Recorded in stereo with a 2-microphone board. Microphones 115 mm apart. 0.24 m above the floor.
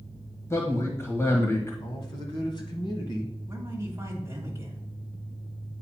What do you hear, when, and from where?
0.5 s a man speaking: 25° left (ahead or behind), 1.4 m
1.8 s a man speaking: 45° left (ahead or behind), 1.4 m
3.5 s a man speaking: 25° right (ahead or behind), 1.4 m